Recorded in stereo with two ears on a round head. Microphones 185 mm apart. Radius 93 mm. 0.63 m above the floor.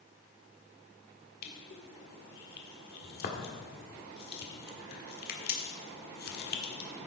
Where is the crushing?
45° left (ahead or behind), 1.5 m.